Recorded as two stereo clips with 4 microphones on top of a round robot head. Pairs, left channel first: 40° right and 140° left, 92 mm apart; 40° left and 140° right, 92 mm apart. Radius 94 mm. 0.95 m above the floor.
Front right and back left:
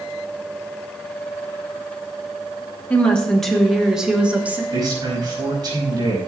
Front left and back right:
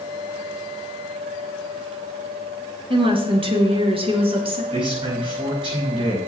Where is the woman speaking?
115° right, 2.5 m; by 4.6 s 150° right, 2.5 m.